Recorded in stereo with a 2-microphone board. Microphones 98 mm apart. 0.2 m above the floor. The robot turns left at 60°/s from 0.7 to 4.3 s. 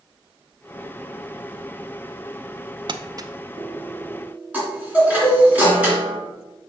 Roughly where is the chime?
Centre.